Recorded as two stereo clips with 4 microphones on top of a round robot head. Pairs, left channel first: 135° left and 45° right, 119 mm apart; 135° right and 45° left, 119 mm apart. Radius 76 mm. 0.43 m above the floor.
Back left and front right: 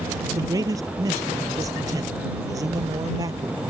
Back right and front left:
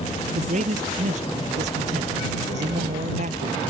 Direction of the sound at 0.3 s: 15° left.